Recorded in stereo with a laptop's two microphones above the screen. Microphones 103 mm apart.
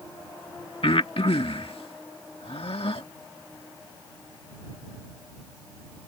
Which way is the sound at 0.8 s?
70° left (ahead or behind).